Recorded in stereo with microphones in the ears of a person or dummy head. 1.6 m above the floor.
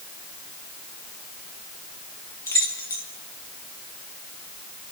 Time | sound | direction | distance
2.5 | keys jangling | 10° left (ahead or behind) | 1.6 m